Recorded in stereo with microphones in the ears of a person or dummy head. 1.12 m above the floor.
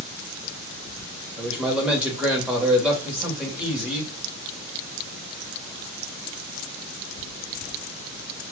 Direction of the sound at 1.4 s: 10° right (ahead or behind).